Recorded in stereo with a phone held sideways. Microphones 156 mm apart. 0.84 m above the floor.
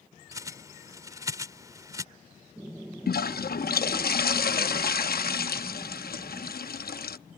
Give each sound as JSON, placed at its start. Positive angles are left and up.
{"t": 0.3, "sound": "a bird", "side_deg": -20}
{"t": 3.1, "sound": "a toilet flushing", "side_deg": 80}